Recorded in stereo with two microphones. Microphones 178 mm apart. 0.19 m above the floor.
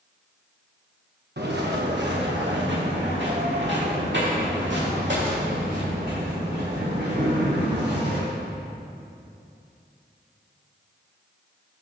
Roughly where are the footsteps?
Right.